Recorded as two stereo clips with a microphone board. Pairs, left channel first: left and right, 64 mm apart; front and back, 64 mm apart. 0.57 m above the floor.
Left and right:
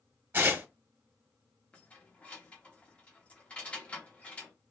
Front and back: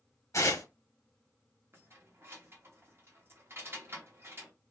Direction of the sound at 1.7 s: 150° left.